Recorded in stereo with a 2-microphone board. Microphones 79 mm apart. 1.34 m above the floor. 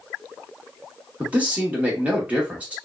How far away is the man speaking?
About 1.3 m.